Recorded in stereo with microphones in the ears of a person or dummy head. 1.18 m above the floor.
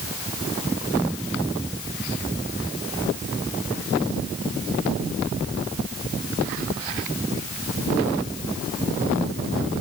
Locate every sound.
Only background noise.